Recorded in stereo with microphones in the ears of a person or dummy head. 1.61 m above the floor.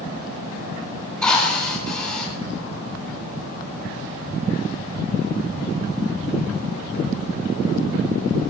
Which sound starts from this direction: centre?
A drill, at 1.2 s.